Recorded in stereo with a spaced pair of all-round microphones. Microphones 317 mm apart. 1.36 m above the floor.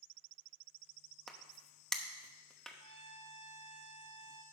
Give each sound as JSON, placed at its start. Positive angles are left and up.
{"t": 1.3, "sound": "a crack", "side_deg": 0, "distance_m": 0.9}
{"t": 2.8, "sound": "a trumpet", "side_deg": -65, "distance_m": 1.0}